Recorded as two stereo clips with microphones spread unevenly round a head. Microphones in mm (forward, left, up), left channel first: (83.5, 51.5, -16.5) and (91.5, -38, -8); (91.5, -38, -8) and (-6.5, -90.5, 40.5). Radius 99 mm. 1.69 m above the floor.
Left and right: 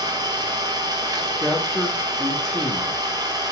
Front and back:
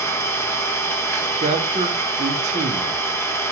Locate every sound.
0.0 s an engine running: 45° right, 1.8 m
1.4 s a man speaking: straight behind, 1.3 m